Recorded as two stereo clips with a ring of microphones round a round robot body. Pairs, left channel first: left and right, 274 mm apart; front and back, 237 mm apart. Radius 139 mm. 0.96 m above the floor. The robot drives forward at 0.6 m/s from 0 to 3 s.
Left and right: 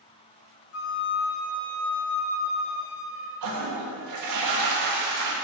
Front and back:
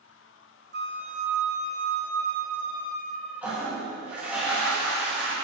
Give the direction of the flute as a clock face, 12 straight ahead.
8 o'clock.